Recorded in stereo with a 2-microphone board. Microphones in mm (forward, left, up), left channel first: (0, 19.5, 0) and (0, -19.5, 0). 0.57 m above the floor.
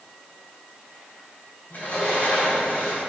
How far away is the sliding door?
About 3.5 m.